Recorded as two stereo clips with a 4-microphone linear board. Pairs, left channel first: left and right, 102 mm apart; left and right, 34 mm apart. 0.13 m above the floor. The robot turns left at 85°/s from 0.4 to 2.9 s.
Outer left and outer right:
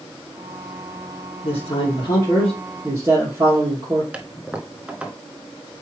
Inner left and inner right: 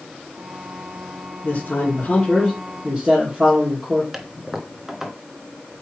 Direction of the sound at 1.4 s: 95° left.